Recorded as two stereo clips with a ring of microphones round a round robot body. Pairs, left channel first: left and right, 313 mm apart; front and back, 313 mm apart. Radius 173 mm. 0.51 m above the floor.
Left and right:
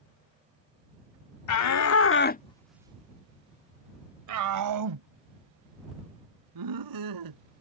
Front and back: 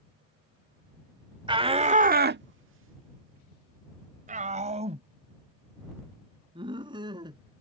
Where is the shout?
105° left; by 7.4 s 100° right.